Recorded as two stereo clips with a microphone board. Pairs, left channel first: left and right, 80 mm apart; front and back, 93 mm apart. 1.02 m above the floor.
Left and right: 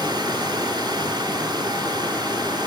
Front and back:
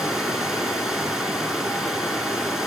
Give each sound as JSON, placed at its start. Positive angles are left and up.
{"t": 0.0, "sound": "running water", "azimuth_deg": -95, "distance_m": 2.5}